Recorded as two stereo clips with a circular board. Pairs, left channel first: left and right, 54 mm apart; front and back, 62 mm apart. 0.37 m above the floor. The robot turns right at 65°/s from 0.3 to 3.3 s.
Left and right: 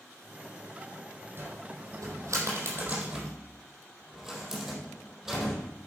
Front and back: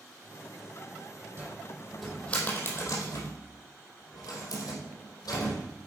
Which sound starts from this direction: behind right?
A cupboard door, at 1.4 s.